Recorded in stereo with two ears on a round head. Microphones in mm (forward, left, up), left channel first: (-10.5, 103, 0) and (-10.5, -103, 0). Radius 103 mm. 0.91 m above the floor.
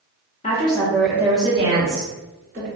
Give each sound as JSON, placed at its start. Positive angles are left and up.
{"t": 0.4, "sound": "a woman speaking", "side_deg": 30, "distance_m": 0.8}